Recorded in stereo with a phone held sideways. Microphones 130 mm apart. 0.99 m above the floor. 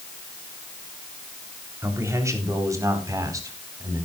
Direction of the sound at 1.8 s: 20° right (ahead or behind).